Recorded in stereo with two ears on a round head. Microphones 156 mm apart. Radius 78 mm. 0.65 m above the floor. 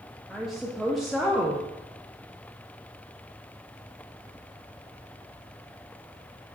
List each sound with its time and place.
0.3 s a woman speaking: centre (ahead or behind), 0.5 m